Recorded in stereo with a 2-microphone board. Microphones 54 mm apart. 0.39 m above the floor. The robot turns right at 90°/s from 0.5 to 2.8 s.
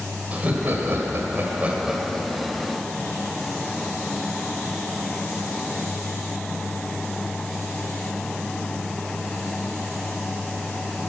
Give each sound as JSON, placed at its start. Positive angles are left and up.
{"t": 0.3, "sound": "laughter", "azimuth_deg": -140, "distance_m": 1.9}